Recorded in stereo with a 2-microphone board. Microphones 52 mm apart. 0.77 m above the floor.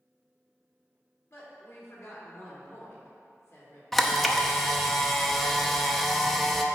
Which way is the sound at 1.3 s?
60° left (ahead or behind).